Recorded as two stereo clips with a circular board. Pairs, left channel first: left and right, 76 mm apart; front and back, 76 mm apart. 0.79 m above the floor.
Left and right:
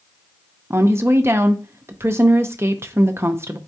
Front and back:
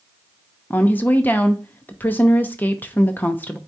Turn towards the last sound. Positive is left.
turn(degrees=-55)